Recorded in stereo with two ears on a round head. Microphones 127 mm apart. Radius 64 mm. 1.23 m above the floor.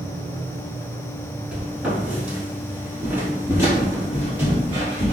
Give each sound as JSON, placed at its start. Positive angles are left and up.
{"t": 1.5, "sound": "footsteps", "side_deg": -10, "distance_m": 1.3}